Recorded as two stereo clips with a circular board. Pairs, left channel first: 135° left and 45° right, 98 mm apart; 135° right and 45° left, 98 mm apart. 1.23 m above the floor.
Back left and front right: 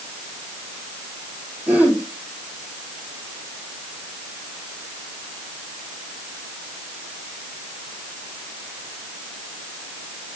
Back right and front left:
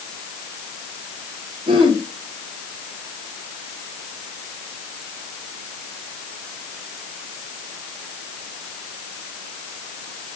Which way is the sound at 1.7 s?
25° left.